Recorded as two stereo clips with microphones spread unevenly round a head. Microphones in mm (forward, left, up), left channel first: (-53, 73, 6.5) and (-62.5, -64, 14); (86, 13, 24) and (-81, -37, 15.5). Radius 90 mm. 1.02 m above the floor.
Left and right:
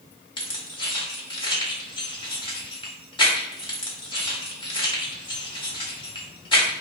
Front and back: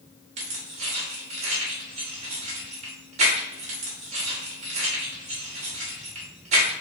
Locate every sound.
0.4 s keys jangling: 140° left, 1.4 m